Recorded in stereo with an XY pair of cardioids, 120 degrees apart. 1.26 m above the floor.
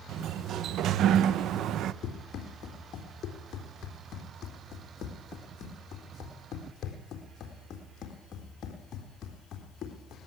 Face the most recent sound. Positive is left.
turn(degrees=55)